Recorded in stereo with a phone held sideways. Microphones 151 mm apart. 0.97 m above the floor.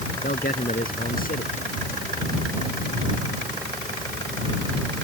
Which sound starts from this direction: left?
A man speaking, at 0.2 s.